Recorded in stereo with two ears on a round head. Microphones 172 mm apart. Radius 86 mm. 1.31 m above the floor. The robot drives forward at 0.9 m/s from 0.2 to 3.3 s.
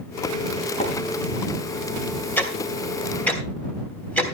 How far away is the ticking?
About 2 m.